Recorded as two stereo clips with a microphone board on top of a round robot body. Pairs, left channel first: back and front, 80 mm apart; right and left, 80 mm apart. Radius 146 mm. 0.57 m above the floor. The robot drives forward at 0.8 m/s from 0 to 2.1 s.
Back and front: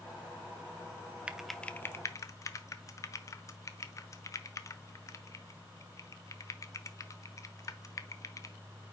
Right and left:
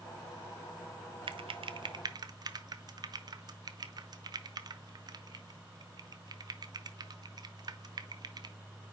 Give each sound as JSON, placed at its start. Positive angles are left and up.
{"t": 1.3, "sound": "typing on a keyboard", "azimuth_deg": 80, "distance_m": 0.7}